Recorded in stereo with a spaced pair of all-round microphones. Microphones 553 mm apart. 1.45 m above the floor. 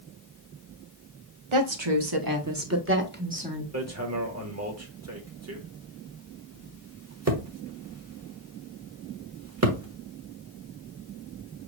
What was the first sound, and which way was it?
A woman speaking, 65° right (ahead or behind).